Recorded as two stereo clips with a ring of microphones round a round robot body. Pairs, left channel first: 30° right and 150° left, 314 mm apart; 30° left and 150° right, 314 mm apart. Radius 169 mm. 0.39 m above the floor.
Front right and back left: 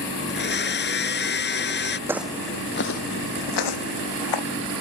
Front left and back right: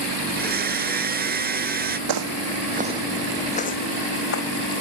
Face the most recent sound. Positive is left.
turn(degrees=-20)